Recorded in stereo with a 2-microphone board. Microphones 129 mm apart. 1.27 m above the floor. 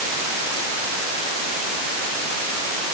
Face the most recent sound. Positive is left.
No sound to turn to.